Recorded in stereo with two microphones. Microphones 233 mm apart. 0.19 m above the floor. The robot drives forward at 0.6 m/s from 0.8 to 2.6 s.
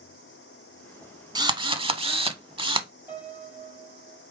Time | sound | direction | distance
1.4 | a drill | 20° right (ahead or behind) | 0.7 m
3.1 | a piano | 10° right (ahead or behind) | 3.5 m